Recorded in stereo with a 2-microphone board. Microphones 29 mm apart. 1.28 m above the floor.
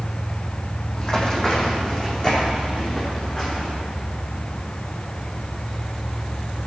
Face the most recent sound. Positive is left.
turn(degrees=30)  # may be behind; listen again after turning